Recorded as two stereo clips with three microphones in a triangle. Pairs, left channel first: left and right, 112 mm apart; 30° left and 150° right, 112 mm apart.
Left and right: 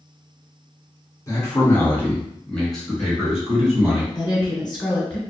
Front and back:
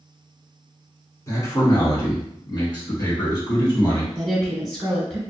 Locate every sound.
1.3 s a man speaking: 65° left, 1.2 m; by 4.0 s 15° right, 1.8 m
4.2 s a woman speaking: 115° left, 1.4 m